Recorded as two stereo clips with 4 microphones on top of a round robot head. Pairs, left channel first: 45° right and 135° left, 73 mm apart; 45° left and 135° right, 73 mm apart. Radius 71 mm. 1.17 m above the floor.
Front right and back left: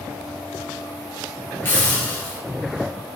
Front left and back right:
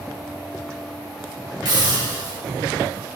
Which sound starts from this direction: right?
A hiss, at 1.6 s.